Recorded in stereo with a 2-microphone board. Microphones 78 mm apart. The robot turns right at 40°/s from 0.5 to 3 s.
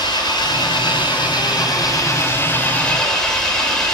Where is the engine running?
70° left, 6 m; by 3.9 s 170° left, 6 m.